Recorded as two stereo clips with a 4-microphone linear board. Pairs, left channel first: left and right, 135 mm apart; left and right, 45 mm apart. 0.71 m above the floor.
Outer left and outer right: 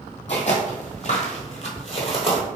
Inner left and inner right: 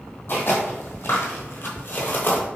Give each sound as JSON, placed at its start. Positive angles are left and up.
{"t": 0.3, "sound": "footsteps", "side_deg": 50, "distance_m": 1.3}